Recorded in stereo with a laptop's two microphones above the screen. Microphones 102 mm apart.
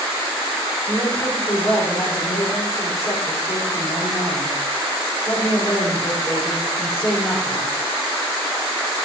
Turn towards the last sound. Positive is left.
turn(degrees=30)  # may be behind; listen again after turning